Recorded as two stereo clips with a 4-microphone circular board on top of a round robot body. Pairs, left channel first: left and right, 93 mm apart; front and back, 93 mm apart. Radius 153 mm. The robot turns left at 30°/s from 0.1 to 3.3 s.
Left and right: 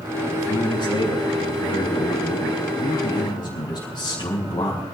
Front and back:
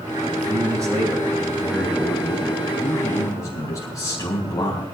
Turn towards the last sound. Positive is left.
turn(degrees=50)